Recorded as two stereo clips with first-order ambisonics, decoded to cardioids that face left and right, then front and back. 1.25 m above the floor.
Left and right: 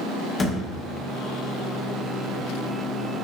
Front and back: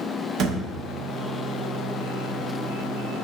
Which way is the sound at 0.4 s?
155° left.